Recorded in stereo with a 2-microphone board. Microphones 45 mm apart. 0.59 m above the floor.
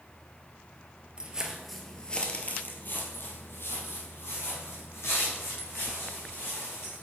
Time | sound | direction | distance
1.2 | footsteps | 25° right (ahead or behind) | 0.8 m